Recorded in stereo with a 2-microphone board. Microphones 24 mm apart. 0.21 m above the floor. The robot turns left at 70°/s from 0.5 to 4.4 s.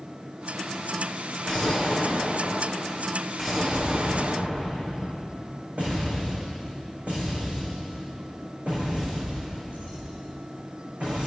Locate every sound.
1.4 s an explosion: 145° left, 7 m; by 11.3 s 60° right, 7 m